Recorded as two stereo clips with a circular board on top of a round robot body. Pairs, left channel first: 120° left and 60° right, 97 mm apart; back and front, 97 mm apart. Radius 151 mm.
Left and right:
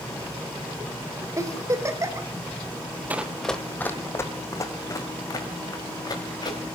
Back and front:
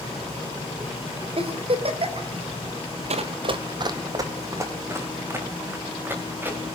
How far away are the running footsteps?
About 0.9 m.